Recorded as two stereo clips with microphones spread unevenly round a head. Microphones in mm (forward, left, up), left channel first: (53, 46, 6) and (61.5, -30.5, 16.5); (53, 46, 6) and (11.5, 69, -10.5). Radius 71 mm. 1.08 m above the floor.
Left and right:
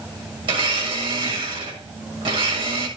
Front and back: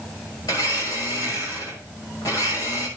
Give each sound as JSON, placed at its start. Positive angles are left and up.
{"t": 0.4, "sound": "a blender", "azimuth_deg": -85, "distance_m": 6.5}